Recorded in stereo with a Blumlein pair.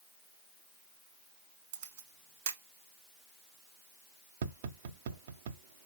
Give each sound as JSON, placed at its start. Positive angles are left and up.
{"t": 1.7, "sound": "a camera shutter", "azimuth_deg": -45, "distance_m": 1.1}
{"t": 4.4, "sound": "tapping", "azimuth_deg": -55, "distance_m": 0.5}